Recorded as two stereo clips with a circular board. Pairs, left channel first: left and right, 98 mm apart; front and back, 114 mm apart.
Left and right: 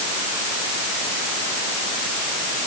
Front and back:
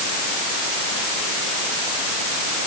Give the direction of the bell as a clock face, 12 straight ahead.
No bell in this recording.